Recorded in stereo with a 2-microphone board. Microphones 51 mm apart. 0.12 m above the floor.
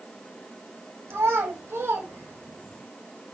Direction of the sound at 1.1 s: 70° right (ahead or behind).